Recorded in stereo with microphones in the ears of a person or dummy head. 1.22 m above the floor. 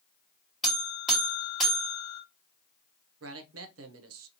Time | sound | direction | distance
0.6 | a buzzer | 5° left (ahead or behind) | 1.5 m
3.2 | a man speaking | 70° right (ahead or behind) | 0.6 m